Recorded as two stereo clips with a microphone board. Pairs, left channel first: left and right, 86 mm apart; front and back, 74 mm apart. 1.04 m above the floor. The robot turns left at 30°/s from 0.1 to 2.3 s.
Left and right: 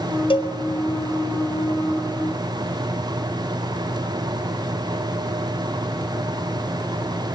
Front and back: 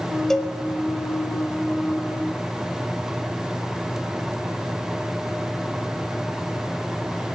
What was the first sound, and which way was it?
A cowbell, 85° left.